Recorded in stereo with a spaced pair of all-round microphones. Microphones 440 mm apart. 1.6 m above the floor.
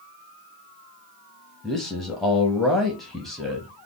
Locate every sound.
1.6 s a man speaking: centre (ahead or behind), 0.6 m